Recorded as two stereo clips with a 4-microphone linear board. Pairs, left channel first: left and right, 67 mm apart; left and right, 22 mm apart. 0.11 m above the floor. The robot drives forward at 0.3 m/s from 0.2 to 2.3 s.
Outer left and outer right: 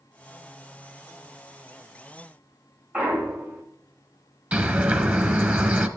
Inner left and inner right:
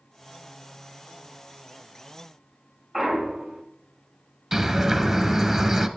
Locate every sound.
2.9 s a clunk: 20° right (ahead or behind), 2.5 m
4.5 s a bird: 20° right (ahead or behind), 0.9 m